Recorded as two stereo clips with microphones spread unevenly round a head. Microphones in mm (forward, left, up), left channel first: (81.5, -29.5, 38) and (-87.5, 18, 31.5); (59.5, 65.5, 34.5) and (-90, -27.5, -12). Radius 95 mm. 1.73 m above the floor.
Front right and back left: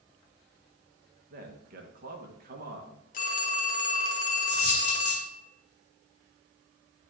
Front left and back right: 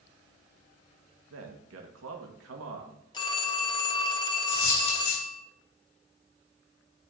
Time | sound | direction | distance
1.3 | a man speaking | 155° right | 1.6 m
3.1 | a phone ringing | straight ahead | 1.3 m
4.5 | a dropped coin | 35° left | 4 m